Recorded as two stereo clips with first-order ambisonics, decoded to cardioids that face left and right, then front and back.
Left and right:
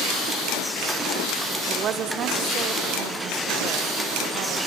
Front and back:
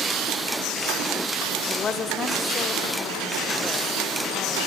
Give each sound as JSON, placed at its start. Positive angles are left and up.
{"t": 1.7, "sound": "a woman speaking", "azimuth_deg": -50, "distance_m": 1.3}